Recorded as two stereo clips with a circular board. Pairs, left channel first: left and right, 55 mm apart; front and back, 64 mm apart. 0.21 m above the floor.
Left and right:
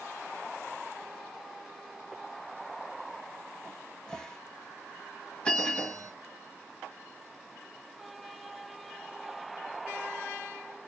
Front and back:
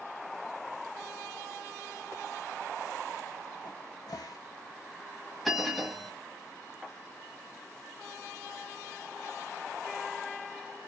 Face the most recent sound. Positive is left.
turn(degrees=95)